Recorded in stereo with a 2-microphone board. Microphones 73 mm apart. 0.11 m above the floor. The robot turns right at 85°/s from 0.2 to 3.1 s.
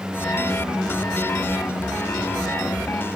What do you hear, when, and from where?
1.4 s a squeak: 75° right (ahead or behind), 2 m; by 1.6 s 70° right (ahead or behind), 2 m